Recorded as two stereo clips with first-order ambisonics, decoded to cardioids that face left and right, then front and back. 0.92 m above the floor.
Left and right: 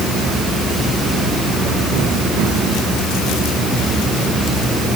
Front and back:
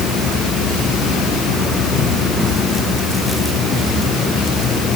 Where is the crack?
No crack in this recording.